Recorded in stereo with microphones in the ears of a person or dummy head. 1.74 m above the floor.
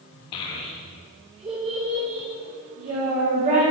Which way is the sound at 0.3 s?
25° left (ahead or behind).